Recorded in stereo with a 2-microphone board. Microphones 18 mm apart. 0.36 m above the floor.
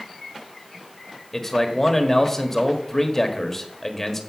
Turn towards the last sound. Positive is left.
turn(degrees=15)  # may be behind; listen again after turning